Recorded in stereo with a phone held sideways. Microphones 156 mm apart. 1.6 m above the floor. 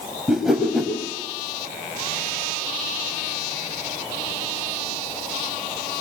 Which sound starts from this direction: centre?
A whoosh, at 0.3 s.